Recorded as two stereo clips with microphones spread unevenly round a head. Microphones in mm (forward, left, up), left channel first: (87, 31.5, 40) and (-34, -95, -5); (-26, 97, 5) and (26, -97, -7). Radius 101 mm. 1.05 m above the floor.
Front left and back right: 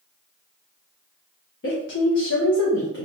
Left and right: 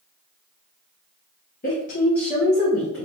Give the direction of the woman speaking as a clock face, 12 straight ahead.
10 o'clock.